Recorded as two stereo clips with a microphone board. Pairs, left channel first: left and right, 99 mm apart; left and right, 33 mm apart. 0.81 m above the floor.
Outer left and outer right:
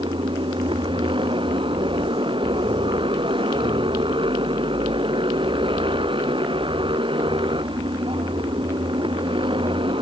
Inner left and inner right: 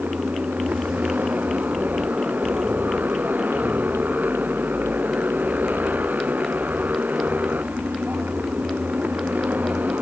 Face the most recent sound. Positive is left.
turn(degrees=-65)  # may be behind; listen again after turning